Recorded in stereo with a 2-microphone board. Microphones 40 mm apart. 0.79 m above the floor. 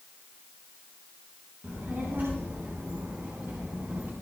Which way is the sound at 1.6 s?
60° right (ahead or behind).